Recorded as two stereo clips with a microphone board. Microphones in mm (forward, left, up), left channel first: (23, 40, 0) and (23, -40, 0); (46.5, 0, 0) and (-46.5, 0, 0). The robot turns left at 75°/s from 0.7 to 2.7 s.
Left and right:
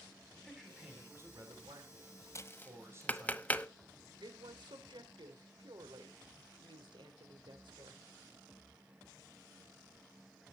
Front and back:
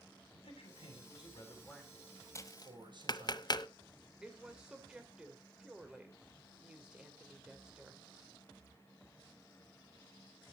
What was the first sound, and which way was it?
A man speaking, 5° left.